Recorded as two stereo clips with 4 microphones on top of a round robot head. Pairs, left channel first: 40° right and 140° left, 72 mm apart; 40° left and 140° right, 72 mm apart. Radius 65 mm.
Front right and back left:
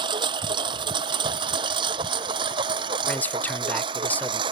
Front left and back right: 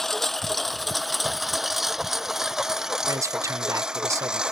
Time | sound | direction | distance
0.0 | a lawn mower | 125° left | ?
3.1 | a man speaking | 100° right | ?